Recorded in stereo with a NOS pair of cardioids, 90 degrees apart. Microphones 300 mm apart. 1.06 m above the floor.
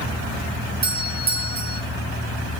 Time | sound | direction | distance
0.8 | a doorbell | 30° right | 3 m